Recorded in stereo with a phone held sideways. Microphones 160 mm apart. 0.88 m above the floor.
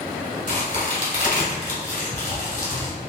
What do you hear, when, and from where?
0.5 s a crack: 55° left (ahead or behind), 1.9 m